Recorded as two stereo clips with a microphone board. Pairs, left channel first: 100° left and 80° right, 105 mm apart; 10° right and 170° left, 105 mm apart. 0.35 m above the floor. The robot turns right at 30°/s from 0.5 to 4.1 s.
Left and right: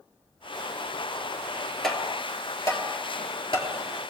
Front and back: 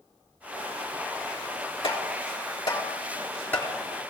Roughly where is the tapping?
Ahead.